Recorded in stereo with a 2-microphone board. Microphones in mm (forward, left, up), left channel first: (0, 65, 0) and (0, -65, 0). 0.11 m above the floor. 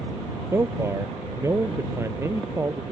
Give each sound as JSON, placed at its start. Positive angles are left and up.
{"t": 0.5, "sound": "a man speaking", "side_deg": -20}